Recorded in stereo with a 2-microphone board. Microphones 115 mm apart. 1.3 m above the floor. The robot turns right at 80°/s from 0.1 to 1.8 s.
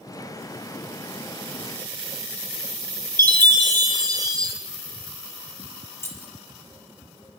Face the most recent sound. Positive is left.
turn(degrees=20)  # may be behind; listen again after turning